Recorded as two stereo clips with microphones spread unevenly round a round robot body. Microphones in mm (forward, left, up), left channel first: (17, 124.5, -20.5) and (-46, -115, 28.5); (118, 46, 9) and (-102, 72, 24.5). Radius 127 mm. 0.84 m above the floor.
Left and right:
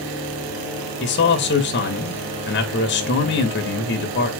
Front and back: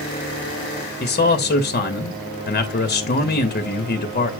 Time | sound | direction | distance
1.0 | a man speaking | 40° left | 1.3 m